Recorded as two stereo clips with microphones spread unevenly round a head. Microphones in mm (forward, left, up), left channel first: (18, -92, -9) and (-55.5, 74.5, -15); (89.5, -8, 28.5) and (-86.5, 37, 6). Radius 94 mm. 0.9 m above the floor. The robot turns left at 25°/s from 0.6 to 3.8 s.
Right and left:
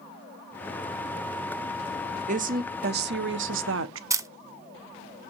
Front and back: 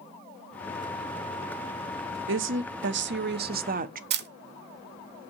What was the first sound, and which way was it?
A woman speaking, 165° left.